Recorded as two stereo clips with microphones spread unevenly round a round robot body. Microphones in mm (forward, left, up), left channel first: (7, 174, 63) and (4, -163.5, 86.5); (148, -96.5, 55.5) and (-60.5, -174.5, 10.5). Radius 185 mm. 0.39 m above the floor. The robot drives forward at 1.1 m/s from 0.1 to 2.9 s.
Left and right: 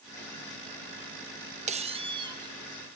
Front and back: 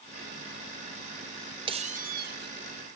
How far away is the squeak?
About 0.9 m.